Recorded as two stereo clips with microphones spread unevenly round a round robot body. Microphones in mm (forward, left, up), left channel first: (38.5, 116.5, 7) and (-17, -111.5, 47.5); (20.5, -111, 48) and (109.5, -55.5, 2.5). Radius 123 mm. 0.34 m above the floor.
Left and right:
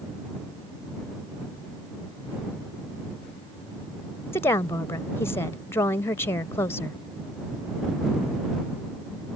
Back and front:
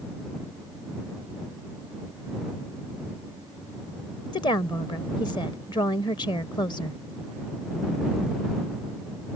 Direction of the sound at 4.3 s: 145° left.